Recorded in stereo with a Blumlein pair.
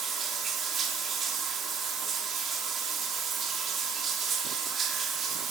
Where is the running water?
20° right, 2.5 m.